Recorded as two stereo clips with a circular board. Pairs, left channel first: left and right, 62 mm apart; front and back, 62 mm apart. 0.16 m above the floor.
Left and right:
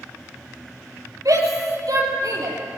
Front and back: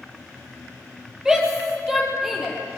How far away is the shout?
About 5 m.